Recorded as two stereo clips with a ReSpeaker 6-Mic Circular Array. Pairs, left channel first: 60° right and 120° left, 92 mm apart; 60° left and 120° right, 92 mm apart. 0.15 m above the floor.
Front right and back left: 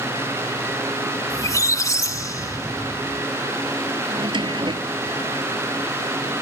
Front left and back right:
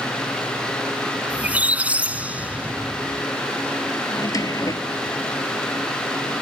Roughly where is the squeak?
Ahead right.